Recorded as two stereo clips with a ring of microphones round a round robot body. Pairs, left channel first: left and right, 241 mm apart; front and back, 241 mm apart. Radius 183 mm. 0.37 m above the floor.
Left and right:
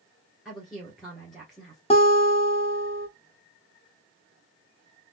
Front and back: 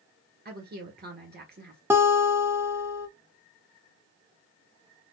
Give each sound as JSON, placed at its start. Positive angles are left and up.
{"t": 0.5, "sound": "a woman speaking", "azimuth_deg": 180, "distance_m": 1.8}
{"t": 1.9, "sound": "a guitar", "azimuth_deg": 110, "distance_m": 1.1}